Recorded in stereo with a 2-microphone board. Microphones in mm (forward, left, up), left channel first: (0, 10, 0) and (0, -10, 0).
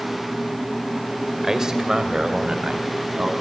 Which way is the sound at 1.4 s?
25° right (ahead or behind).